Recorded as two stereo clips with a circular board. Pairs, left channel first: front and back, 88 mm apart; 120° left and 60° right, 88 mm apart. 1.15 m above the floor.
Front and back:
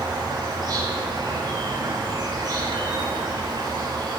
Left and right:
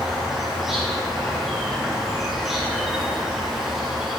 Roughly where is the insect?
Behind right.